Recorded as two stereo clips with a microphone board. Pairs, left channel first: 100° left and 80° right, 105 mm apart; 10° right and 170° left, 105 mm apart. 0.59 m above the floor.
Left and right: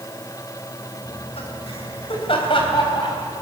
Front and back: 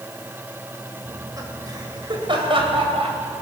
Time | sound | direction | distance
1.1 | laughter | 105° left | 3 m